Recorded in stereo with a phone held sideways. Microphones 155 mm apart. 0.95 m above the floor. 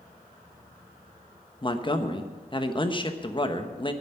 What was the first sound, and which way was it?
A man speaking, 30° left (ahead or behind).